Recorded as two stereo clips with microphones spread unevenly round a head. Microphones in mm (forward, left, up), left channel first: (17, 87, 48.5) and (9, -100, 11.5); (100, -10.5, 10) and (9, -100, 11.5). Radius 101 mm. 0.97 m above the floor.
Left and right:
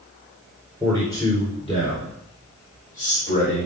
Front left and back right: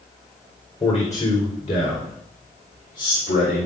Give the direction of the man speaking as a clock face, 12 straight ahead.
12 o'clock.